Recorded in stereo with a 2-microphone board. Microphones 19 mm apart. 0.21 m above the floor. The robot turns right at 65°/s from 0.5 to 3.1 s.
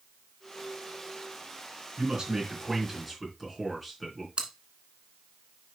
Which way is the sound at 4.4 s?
60° right (ahead or behind).